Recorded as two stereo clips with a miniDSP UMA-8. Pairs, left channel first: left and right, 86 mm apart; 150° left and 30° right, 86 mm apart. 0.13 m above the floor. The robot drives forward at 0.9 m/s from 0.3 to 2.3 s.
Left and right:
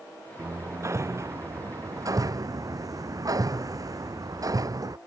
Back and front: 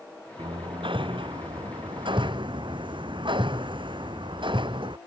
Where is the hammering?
30° right; by 5.0 s 45° right.